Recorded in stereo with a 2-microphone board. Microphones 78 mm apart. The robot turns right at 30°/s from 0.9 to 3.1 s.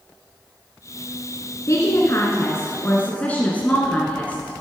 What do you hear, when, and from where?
1.7 s a woman speaking: 110° left, 1.6 m; by 4.6 s 155° left, 1.6 m